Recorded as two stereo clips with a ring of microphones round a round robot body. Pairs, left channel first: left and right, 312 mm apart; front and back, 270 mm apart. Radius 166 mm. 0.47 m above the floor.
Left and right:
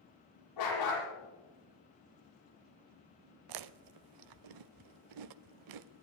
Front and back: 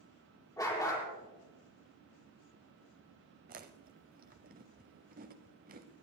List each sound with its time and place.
0.6 s a dog barking: 75° left, 8 m
3.5 s chewing: 115° right, 0.5 m